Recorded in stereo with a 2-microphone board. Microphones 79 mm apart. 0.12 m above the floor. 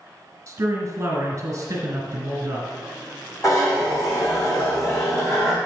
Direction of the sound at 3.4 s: 45° left (ahead or behind).